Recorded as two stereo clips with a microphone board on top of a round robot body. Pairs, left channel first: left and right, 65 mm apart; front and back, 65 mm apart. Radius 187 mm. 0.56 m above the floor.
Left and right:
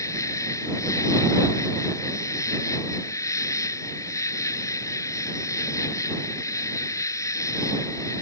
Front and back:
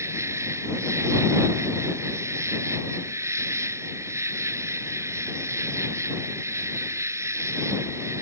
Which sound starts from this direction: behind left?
An insect, at 0.0 s.